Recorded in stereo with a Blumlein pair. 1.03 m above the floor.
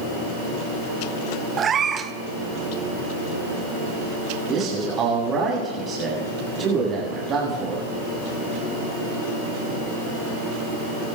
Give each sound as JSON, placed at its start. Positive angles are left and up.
{"t": 1.6, "sound": "a cat meowing", "azimuth_deg": -20, "distance_m": 0.8}
{"t": 4.5, "sound": "a man speaking", "azimuth_deg": -25, "distance_m": 8.0}